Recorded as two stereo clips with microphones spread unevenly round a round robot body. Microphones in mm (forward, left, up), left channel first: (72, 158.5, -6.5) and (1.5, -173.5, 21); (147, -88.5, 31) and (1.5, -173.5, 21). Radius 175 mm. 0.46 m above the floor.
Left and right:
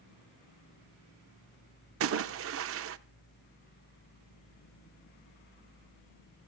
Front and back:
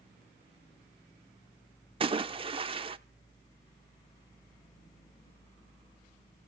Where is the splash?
130° right, 0.8 m.